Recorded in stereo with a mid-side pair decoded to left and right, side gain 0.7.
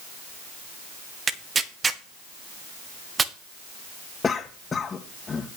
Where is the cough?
20° left, 1.6 m.